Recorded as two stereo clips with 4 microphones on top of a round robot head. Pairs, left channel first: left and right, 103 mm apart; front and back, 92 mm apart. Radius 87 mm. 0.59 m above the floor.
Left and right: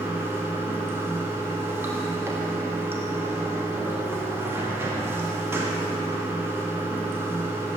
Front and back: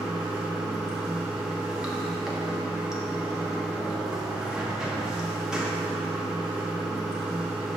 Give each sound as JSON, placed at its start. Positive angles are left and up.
{"t": 0.0, "sound": "running water", "azimuth_deg": -110, "distance_m": 0.9}